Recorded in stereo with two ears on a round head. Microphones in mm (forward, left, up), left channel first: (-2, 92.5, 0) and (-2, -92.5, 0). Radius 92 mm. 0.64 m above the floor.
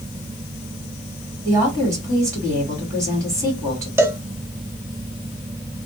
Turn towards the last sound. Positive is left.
turn(degrees=-10)  # may be behind; listen again after turning